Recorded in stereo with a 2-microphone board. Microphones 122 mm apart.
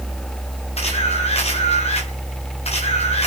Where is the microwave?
No microwave in this recording.